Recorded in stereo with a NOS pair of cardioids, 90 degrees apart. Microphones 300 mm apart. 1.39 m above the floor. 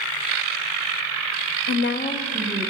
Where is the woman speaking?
60° left, 0.6 m; by 2.7 s 15° right, 1.1 m.